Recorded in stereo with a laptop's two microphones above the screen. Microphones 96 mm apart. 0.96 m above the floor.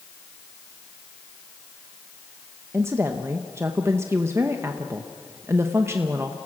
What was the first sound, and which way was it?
A woman speaking, 25° right (ahead or behind).